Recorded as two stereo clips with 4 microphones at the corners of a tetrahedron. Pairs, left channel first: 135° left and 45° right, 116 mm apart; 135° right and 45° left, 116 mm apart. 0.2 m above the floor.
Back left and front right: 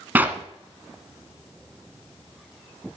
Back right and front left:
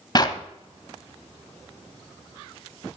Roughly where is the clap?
Right.